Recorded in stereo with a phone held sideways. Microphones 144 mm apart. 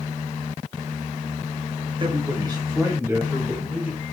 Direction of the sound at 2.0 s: 35° right (ahead or behind).